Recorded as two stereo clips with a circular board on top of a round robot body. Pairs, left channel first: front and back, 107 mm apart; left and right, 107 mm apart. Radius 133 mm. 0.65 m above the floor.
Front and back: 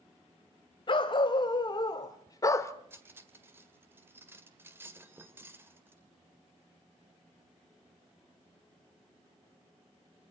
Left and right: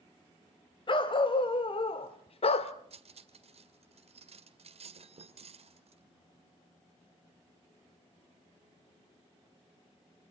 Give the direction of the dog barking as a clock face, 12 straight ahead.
10 o'clock.